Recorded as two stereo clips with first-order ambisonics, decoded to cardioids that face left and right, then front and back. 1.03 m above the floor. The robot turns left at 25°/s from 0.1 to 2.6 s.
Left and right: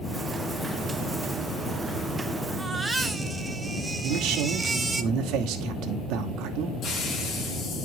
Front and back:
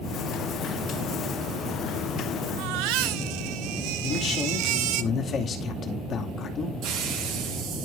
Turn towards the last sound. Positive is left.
turn(degrees=145)